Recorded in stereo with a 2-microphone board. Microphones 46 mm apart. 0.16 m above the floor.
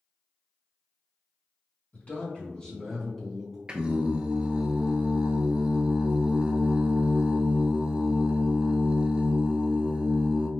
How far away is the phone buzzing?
I don't hear a phone buzzing.